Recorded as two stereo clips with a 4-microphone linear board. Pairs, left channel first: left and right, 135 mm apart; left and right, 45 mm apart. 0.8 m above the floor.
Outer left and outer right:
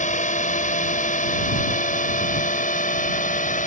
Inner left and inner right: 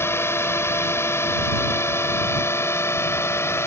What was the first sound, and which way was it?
A drone, 65° left (ahead or behind).